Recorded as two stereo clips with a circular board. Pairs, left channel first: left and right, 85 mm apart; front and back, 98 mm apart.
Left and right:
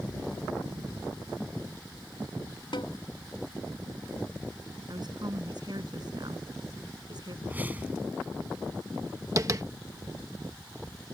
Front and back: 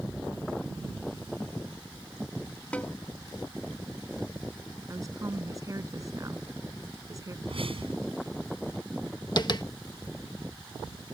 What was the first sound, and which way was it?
A snare drum, 80° left.